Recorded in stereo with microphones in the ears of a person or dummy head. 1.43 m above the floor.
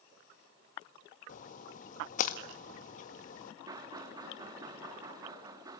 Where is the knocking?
25° right (ahead or behind), 2.5 m.